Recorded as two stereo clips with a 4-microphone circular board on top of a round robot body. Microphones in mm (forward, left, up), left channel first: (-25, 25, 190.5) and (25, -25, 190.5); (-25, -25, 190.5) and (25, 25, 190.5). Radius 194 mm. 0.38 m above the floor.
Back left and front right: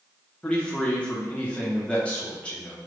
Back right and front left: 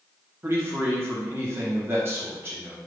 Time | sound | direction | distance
0.4 | a man speaking | 70° left | 1.3 m